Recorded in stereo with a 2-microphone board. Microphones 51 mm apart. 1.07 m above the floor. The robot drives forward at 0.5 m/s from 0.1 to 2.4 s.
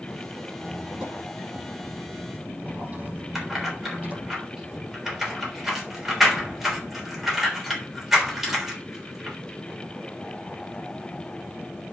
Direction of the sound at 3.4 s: 10° right (ahead or behind).